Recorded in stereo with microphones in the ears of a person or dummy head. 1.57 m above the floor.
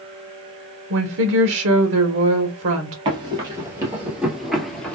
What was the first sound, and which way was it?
A woman speaking, 65° right (ahead or behind).